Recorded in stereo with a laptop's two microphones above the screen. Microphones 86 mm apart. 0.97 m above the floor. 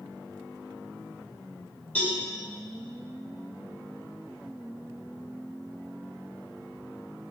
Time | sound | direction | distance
1.9 | a cowbell | 20° left (ahead or behind) | 3 m